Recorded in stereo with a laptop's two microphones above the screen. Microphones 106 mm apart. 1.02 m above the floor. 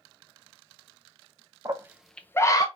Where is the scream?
35° right (ahead or behind), 0.6 m; by 2.6 s 35° left (ahead or behind), 0.8 m.